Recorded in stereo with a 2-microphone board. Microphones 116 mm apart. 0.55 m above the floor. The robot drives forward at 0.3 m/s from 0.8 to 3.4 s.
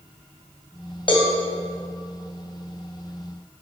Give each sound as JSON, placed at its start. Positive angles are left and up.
{"t": 1.1, "sound": "a cowbell", "side_deg": 45, "distance_m": 2.5}